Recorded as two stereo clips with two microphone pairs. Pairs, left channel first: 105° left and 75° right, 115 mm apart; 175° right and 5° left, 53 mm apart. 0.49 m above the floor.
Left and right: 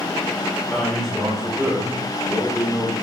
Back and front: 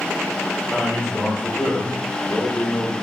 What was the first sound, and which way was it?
A man speaking, 165° right.